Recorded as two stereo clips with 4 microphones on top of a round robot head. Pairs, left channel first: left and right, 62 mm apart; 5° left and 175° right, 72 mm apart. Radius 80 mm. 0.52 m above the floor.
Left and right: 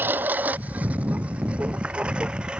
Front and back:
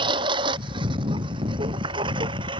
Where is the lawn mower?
155° right; by 2.6 s 170° right.